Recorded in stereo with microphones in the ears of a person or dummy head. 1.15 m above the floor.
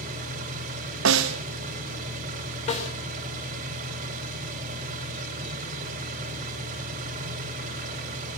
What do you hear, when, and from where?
0.0 s an engine running: 50° right (ahead or behind), 3 m
1.1 s a snare drum: 70° right (ahead or behind), 0.8 m
2.7 s a snare drum: 35° left (ahead or behind), 4 m